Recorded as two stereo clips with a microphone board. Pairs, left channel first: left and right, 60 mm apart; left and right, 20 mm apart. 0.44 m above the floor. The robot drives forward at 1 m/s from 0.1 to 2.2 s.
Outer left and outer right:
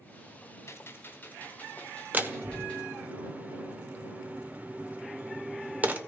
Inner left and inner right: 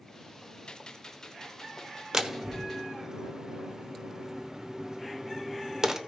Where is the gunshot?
50° left (ahead or behind), 0.9 m; by 2.9 s 20° left (ahead or behind), 2 m.